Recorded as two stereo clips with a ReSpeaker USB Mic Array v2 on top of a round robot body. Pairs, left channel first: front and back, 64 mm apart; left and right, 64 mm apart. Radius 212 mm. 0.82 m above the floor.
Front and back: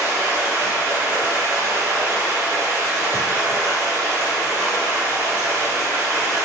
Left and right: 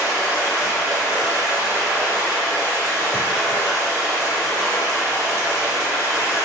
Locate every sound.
0.0 s running water: 130° right, 1.7 m